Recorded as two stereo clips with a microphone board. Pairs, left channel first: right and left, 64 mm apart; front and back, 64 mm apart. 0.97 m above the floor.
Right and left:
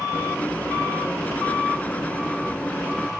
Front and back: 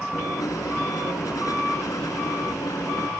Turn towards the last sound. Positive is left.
turn(degrees=-25)